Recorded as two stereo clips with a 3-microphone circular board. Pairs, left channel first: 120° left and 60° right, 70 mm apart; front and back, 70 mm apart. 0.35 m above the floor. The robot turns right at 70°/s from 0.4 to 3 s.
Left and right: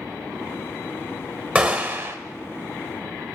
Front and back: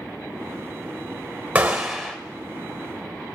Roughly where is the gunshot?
Behind right.